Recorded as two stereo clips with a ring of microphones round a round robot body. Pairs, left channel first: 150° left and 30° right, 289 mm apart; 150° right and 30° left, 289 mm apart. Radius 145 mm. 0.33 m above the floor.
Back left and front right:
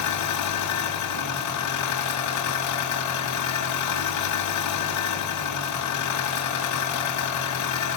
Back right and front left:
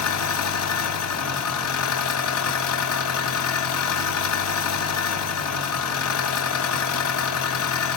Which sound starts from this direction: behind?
An engine running, at 0.0 s.